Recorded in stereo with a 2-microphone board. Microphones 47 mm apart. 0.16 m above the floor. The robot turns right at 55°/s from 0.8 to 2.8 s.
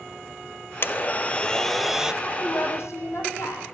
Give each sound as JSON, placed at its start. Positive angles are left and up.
{"t": 0.8, "sound": "a blender", "azimuth_deg": 125, "distance_m": 1.0}
{"t": 2.2, "sound": "a woman speaking", "azimuth_deg": 50, "distance_m": 7.5}